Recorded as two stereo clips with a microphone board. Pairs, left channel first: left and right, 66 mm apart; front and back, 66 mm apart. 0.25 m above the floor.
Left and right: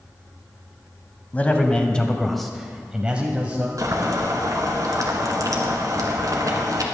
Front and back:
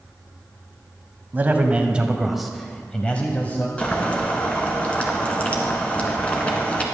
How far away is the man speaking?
About 1.2 m.